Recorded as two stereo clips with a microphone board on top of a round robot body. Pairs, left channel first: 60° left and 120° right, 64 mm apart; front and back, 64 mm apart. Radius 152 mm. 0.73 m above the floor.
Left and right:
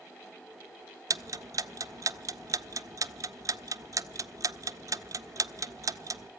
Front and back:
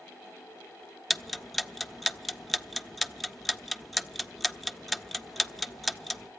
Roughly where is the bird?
I don't hear a bird.